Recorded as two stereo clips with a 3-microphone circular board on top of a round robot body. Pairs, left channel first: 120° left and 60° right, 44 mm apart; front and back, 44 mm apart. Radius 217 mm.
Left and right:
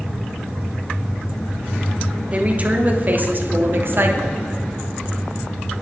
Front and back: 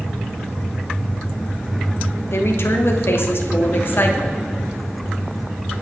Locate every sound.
2.3 s a woman speaking: 5° right, 2.5 m; by 4.4 s 40° right, 2.5 m